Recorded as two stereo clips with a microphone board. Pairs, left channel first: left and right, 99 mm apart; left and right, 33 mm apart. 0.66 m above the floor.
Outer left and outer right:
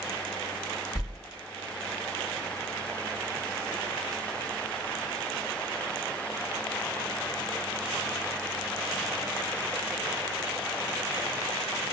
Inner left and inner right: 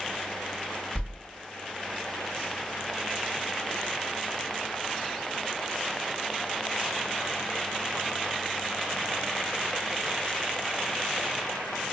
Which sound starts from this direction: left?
A whoosh, at 0.9 s.